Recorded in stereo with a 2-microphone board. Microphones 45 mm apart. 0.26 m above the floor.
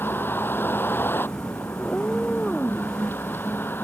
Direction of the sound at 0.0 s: 50° left (ahead or behind).